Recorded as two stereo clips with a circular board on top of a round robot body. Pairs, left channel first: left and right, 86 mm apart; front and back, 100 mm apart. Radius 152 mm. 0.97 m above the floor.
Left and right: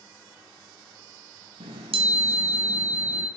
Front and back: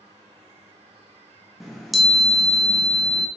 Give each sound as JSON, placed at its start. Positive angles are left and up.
{"t": 1.6, "sound": "a chime", "azimuth_deg": -90, "distance_m": 0.8}